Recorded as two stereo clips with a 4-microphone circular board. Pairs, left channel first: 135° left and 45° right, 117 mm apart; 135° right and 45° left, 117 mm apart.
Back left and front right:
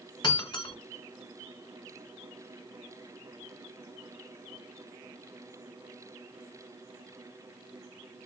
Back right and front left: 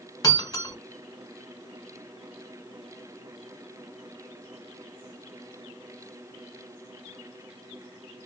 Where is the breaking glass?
175° left, 1.4 m.